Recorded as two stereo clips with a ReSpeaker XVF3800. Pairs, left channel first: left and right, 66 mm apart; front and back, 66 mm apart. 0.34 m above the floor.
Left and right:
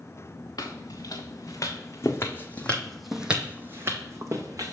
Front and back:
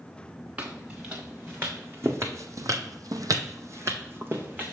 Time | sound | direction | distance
0.6 | footsteps | 115° left | 1.7 m